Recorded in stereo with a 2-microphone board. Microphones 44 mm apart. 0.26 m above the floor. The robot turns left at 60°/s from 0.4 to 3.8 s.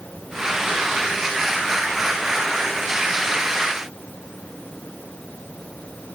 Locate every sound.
Only background noise.